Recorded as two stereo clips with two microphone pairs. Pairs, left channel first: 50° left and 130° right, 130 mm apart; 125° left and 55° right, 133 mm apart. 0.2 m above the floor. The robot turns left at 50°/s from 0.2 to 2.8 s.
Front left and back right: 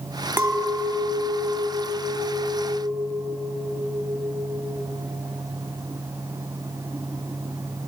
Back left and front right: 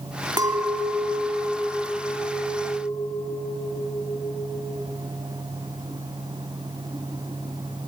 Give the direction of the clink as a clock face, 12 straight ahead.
3 o'clock.